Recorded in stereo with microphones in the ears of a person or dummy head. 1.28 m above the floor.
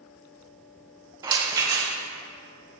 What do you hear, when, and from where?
1.2 s a rattle: 20° right (ahead or behind), 0.7 m